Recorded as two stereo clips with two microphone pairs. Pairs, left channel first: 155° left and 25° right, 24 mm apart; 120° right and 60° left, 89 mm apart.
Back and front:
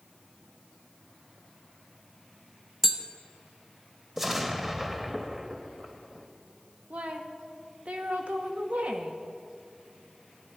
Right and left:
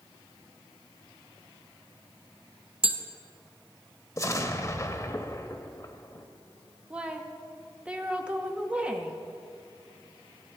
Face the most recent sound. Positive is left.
turn(degrees=-15)